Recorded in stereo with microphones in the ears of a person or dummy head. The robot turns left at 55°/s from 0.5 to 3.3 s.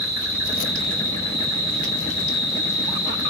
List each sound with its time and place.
0.0 s an insect: 165° right, 1.1 m; by 3.3 s 40° left, 1.1 m